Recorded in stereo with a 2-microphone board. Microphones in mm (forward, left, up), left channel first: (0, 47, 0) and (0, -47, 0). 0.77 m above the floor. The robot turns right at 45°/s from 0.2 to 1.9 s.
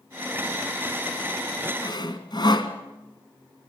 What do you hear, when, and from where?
1.8 s sawing: 50° left (ahead or behind), 1.8 m